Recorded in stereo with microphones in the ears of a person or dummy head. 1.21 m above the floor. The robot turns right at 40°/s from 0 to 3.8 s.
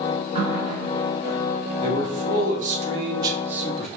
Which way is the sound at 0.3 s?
145° right.